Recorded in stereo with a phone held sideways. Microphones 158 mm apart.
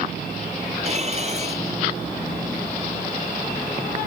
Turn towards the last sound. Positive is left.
turn(degrees=-40)  # may be behind; listen again after turning